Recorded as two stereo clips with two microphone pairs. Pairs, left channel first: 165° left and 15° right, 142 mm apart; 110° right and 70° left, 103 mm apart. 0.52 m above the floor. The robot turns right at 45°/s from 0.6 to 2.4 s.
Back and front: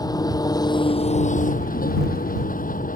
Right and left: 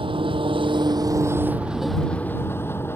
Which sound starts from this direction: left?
An engine running, at 0.0 s.